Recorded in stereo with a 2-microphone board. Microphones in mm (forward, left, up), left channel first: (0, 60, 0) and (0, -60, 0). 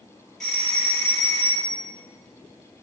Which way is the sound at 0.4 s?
5° left (ahead or behind).